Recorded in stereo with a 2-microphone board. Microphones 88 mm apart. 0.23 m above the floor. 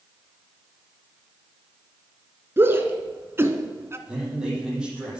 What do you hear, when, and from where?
2.6 s a shout: 25° right (ahead or behind), 2.5 m; by 4.0 s 30° right (ahead or behind), 1.8 m
4.1 s a man speaking: 10° right (ahead or behind), 8 m